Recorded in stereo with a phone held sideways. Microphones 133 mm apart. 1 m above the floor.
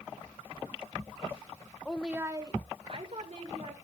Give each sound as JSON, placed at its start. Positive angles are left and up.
{"t": 1.9, "sound": "a woman speaking", "side_deg": 10, "distance_m": 0.8}